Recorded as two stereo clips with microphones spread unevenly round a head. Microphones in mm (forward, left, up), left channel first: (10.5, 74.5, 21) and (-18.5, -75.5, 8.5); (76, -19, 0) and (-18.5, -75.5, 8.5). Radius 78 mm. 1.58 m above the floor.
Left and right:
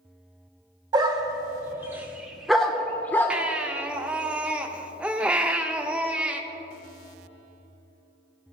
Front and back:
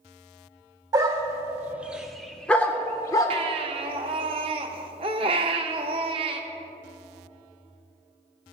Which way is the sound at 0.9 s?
155° right.